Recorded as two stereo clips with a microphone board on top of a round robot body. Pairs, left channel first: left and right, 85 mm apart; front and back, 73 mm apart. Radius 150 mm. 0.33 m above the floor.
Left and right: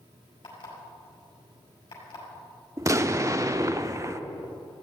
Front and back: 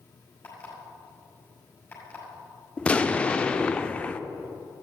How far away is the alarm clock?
About 6 m.